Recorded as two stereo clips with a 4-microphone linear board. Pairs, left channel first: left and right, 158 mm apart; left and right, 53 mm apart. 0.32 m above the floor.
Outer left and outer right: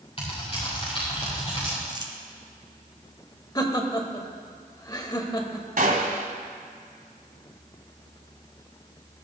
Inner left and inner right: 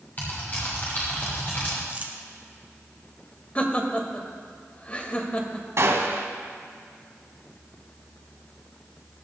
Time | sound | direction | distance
0.2 | typing on a keyboard | 35° left (ahead or behind) | 6.5 m
1.9 | crumpling | 30° right (ahead or behind) | 1.5 m
3.5 | laughter | 25° left (ahead or behind) | 1.4 m
5.8 | a gunshot | 60° right (ahead or behind) | 1.3 m